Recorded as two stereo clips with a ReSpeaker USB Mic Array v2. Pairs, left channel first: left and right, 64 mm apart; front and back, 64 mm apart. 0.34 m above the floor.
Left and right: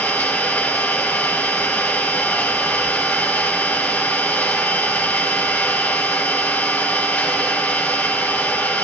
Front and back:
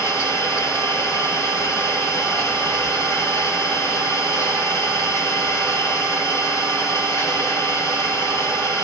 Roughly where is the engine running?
Ahead left.